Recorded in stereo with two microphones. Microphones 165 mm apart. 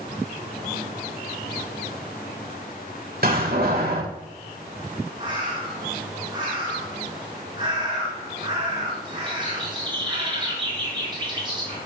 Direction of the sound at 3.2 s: 65° right (ahead or behind).